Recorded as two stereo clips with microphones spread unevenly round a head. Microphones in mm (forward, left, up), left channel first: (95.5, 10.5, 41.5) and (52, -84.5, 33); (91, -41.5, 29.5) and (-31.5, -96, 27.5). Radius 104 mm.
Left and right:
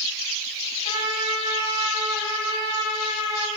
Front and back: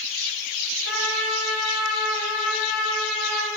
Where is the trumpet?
60° left, 3.5 m.